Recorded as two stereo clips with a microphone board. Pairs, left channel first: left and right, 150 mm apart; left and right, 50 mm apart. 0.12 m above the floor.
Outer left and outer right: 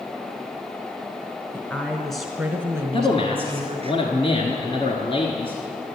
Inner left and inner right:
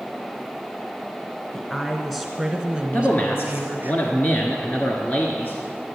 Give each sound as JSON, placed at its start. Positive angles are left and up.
{"t": 1.5, "sound": "a woman speaking", "side_deg": 15, "distance_m": 1.3}
{"t": 2.9, "sound": "a man speaking", "side_deg": 40, "distance_m": 1.3}